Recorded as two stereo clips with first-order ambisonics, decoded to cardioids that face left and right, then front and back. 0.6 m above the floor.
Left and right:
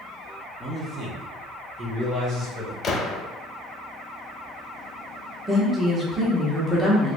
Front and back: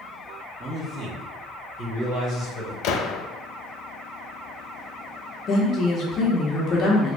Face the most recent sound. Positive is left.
turn(degrees=-15)